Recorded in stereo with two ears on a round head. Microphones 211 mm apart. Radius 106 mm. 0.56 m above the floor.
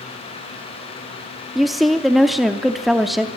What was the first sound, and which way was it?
A woman speaking, centre (ahead or behind).